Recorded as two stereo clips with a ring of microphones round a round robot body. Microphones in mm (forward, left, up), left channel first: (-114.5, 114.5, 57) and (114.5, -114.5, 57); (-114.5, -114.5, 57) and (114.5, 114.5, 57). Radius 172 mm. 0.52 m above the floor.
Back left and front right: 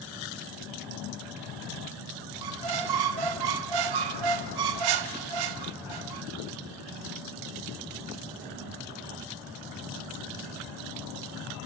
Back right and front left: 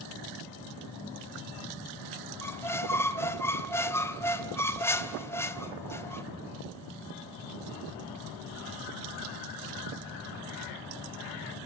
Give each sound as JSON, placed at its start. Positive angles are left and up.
{"t": 2.4, "sound": "a squeak", "azimuth_deg": -50, "distance_m": 1.2}